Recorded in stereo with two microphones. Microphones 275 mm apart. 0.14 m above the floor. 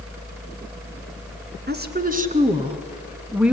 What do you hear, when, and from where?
1.7 s a woman speaking: 40° right (ahead or behind), 1.5 m; by 3.5 s 5° right (ahead or behind), 1.3 m